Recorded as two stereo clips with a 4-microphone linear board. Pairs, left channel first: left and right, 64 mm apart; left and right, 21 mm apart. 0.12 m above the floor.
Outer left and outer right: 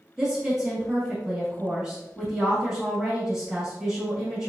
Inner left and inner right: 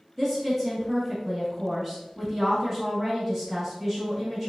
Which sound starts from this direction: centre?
A woman speaking, at 0.2 s.